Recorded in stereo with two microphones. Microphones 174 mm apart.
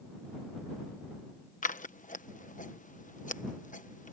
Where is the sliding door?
I don't hear a sliding door.